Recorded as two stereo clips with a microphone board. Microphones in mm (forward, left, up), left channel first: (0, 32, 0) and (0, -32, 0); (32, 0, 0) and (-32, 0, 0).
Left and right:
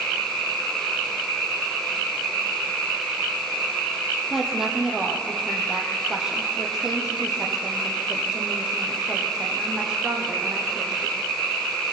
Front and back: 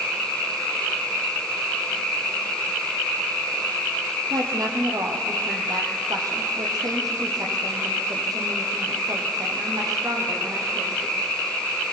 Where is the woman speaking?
175° right, 4.5 m; by 11.1 s 170° right, 8.5 m.